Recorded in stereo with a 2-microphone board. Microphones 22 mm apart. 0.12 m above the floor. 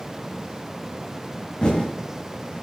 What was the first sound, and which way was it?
Typing on a keyboard, 40° left (ahead or behind).